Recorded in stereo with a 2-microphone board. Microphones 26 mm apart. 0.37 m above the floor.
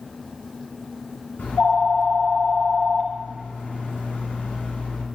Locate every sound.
1.4 s a phone ringing: 75° left (ahead or behind), 2 m